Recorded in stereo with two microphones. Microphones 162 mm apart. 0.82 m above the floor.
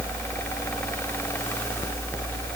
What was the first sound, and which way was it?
Only background noise.